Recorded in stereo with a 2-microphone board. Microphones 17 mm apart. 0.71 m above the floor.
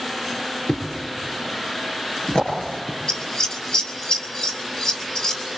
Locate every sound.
0.7 s a thud: 80° left, 6 m
3.1 s scissors: 60° left (ahead or behind), 4.5 m